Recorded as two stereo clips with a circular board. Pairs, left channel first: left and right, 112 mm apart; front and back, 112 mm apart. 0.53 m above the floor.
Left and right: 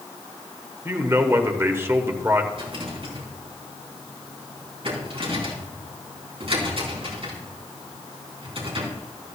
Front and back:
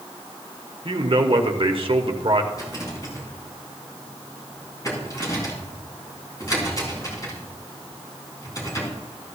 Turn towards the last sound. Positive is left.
turn(degrees=-55)